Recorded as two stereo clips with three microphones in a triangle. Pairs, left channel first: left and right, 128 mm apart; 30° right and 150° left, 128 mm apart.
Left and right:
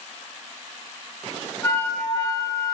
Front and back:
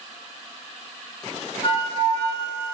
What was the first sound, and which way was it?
A flute, 30° left.